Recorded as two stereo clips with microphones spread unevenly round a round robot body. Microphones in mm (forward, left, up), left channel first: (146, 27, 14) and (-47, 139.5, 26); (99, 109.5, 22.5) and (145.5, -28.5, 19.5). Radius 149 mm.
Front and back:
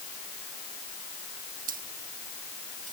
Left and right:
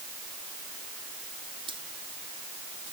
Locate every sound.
1.7 s keys jangling: 145° right